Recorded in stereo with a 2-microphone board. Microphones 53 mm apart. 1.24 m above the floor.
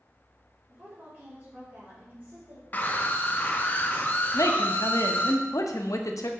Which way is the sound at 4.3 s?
85° left.